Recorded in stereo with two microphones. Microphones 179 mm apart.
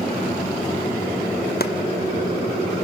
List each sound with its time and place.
1.6 s chopping: 65° left (ahead or behind), 1.0 m